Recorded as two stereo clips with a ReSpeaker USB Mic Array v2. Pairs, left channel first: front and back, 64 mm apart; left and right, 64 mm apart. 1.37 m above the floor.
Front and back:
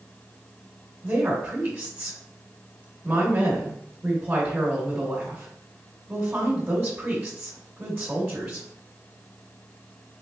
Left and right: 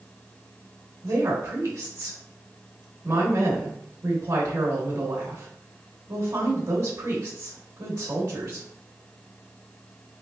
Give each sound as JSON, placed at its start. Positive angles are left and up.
{"t": 1.0, "sound": "a woman speaking", "azimuth_deg": -105, "distance_m": 1.2}